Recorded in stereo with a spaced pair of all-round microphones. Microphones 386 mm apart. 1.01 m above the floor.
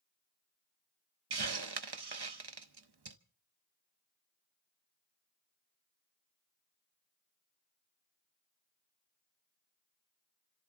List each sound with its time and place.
1.3 s a hiss: 80° right, 0.7 m